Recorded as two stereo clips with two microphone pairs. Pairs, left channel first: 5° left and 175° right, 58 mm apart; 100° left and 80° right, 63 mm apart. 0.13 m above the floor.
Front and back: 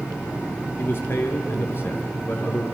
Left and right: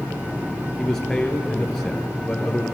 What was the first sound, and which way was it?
A man speaking, 20° left.